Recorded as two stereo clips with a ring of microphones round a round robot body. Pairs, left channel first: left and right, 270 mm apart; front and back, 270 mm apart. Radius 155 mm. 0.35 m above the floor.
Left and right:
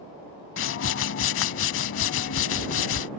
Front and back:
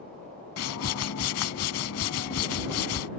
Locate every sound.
0.6 s a whoosh: 45° left